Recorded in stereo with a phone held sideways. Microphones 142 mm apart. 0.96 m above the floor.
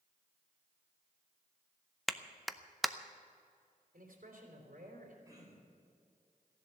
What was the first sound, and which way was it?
A clap, centre (ahead or behind).